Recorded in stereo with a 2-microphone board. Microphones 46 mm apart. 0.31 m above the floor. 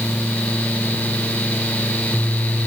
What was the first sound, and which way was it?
Only background noise.